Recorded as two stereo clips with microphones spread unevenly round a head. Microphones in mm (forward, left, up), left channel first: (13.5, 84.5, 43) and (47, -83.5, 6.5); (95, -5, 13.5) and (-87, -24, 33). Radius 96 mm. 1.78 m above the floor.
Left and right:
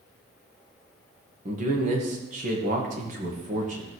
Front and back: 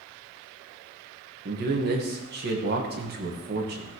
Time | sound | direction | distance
1.4 | a man speaking | 135° right | 1.7 m